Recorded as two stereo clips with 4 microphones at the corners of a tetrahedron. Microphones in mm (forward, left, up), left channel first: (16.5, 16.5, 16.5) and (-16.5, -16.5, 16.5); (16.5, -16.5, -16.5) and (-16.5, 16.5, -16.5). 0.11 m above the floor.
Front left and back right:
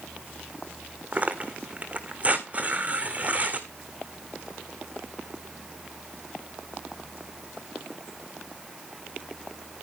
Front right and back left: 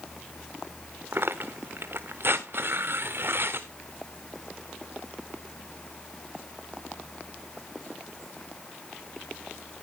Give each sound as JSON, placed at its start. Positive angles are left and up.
{"t": 1.1, "sound": "tearing paper", "azimuth_deg": 170, "distance_m": 1.4}